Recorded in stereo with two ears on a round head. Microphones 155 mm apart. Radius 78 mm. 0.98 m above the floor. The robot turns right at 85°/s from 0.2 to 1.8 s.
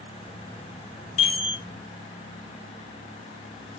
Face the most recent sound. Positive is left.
turn(degrees=-165)